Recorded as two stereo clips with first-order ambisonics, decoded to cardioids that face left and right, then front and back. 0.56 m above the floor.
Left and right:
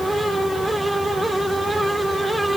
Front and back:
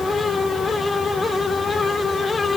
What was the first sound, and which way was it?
Only background noise.